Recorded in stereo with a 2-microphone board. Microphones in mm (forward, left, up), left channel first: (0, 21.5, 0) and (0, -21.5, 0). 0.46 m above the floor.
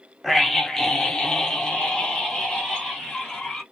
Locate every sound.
0.2 s a scream: 5° left (ahead or behind), 0.7 m; by 3.6 s 20° left (ahead or behind), 1.6 m